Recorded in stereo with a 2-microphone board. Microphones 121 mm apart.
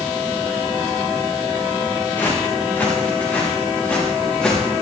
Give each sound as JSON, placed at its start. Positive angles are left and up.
{"t": 2.2, "sound": "footsteps", "side_deg": 20, "distance_m": 5.5}